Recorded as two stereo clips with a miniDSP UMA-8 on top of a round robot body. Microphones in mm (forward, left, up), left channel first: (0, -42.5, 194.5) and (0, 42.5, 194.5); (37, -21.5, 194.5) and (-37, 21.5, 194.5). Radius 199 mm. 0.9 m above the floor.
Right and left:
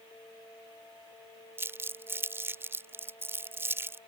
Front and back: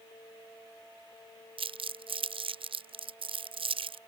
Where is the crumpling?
155° left.